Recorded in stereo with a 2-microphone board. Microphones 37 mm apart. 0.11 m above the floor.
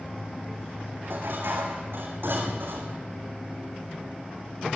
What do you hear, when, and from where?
1.0 s dishes clattering: 75° right (ahead or behind), 3.5 m